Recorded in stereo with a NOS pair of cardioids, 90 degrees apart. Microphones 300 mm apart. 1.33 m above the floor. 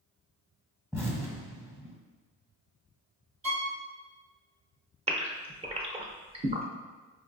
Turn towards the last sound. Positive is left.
turn(degrees=-20)